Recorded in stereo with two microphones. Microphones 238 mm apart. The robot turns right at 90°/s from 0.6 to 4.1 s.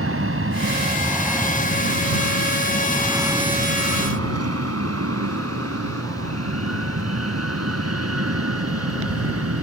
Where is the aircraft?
60° right (ahead or behind); by 9.6 s 70° right (ahead or behind).